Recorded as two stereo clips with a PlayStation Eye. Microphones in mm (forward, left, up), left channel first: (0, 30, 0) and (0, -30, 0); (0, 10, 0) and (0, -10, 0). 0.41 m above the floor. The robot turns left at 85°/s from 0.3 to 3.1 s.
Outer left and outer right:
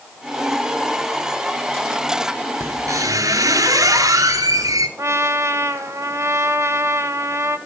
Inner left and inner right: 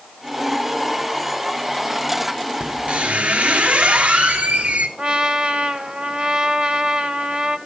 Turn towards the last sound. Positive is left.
turn(degrees=-55)  # may be behind; listen again after turning